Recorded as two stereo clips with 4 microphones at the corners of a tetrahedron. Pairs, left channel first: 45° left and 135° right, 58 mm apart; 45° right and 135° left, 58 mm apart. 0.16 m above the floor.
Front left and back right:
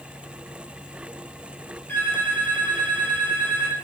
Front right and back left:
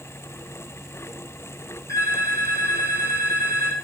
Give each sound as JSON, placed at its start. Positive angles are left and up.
{"t": 1.9, "sound": "a phone ringing", "azimuth_deg": -15, "distance_m": 3.5}